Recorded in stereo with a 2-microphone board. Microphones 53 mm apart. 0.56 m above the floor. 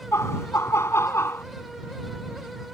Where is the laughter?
60° left (ahead or behind); by 1.4 s 55° left (ahead or behind).